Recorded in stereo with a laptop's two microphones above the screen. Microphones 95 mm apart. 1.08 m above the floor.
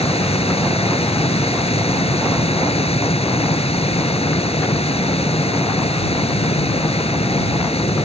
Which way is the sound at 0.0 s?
85° left.